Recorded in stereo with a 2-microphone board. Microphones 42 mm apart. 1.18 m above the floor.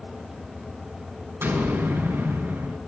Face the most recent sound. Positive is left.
turn(degrees=-85)